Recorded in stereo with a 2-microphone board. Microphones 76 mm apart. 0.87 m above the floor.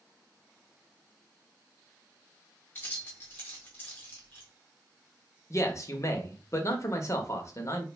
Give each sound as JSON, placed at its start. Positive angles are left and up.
{"t": 2.8, "sound": "keys jangling", "side_deg": 30, "distance_m": 1.3}
{"t": 5.5, "sound": "a man speaking", "side_deg": 40, "distance_m": 0.7}